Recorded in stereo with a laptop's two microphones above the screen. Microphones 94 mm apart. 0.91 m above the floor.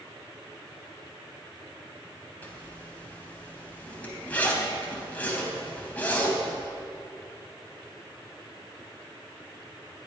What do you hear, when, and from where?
2.4 s a zipper: 15° left (ahead or behind), 3.5 m